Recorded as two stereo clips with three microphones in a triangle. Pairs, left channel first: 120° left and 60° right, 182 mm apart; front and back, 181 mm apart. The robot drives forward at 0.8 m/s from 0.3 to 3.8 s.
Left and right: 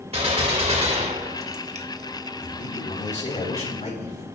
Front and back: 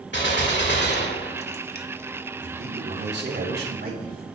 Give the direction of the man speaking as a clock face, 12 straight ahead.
6 o'clock.